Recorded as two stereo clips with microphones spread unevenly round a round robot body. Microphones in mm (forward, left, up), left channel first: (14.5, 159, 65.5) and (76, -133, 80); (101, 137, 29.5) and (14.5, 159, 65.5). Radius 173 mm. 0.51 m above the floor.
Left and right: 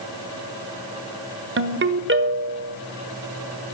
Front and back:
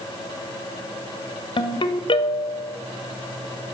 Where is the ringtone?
25° right, 1.3 m.